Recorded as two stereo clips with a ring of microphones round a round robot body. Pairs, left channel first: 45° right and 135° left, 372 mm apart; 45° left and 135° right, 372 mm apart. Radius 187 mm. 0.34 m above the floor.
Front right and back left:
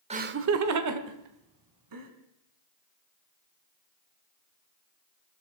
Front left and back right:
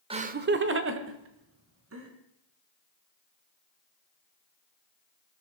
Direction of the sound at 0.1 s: 175° left.